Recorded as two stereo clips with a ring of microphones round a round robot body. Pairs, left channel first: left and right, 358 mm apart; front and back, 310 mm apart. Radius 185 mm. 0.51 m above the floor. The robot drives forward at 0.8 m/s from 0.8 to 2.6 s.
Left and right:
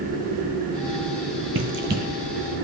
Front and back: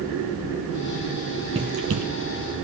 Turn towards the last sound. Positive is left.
turn(degrees=-165)